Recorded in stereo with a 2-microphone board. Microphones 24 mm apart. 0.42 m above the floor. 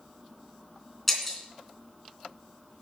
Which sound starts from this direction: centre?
Breaking glass, at 1.1 s.